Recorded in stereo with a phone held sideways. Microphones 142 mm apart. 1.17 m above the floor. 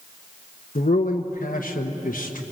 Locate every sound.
0.8 s a man speaking: 75° left (ahead or behind), 1.3 m